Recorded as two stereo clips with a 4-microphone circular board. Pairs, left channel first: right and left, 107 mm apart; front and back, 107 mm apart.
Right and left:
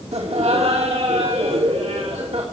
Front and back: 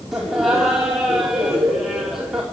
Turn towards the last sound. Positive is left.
turn(degrees=90)